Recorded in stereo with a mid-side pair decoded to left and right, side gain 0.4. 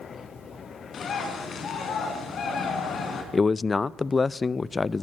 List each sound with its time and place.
0.9 s a bird: 60° left, 4.5 m
3.3 s a man speaking: 35° left, 0.6 m